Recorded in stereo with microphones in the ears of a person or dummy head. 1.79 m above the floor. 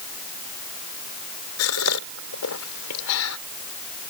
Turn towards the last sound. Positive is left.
turn(degrees=75)  # may be behind; listen again after turning